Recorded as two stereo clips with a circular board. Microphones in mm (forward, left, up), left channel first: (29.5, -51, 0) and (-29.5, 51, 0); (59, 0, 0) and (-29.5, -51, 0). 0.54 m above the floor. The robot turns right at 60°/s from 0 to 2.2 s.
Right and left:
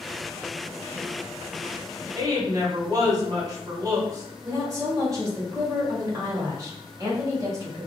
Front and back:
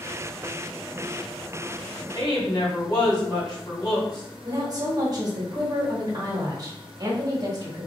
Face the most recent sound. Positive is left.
turn(degrees=170)